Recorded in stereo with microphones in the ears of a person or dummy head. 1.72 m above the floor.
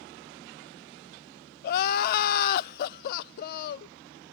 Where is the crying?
55° left (ahead or behind), 0.5 m.